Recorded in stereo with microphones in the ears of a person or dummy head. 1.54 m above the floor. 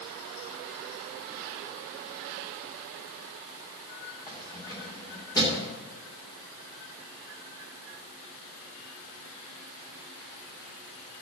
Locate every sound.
4.3 s keys jangling: 15° left (ahead or behind), 3 m